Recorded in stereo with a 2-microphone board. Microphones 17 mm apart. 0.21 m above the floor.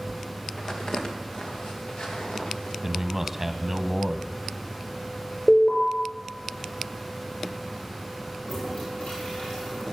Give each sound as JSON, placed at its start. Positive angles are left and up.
{"t": 0.6, "sound": "footsteps", "side_deg": 40, "distance_m": 3.5}
{"t": 2.8, "sound": "a man speaking", "side_deg": -20, "distance_m": 1.1}
{"t": 5.5, "sound": "an alarm", "side_deg": 65, "distance_m": 5.5}
{"t": 8.4, "sound": "a toilet flushing", "side_deg": 85, "distance_m": 9.0}